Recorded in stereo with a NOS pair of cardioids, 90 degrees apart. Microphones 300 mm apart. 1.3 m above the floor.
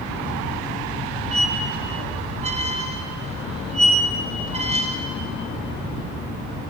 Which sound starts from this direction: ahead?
A squeak, at 1.3 s.